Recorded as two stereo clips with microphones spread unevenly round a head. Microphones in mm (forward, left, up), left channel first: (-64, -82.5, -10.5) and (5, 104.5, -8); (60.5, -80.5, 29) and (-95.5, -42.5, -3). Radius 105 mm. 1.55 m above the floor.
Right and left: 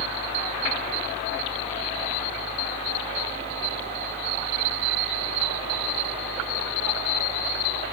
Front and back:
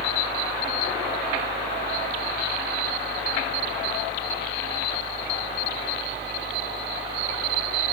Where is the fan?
10° right.